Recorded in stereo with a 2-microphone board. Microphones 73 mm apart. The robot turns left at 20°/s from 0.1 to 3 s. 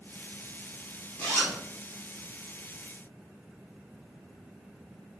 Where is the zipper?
20° left (ahead or behind), 1.4 m; by 1.6 s 10° left (ahead or behind), 1.4 m.